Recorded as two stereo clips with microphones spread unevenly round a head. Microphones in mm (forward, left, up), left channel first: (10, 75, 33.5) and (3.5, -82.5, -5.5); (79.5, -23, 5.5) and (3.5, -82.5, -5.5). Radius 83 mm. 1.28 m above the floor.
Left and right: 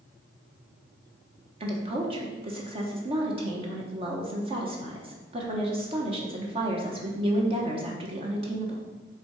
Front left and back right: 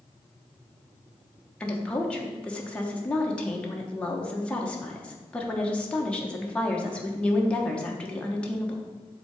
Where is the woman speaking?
40° right, 1.1 m.